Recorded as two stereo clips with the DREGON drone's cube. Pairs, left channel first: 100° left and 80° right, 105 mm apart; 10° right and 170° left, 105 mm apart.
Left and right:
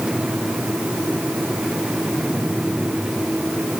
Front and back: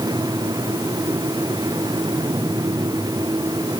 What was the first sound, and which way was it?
Only background noise.